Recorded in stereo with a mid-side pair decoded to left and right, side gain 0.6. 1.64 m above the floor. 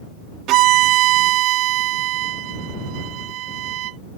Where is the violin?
65° right.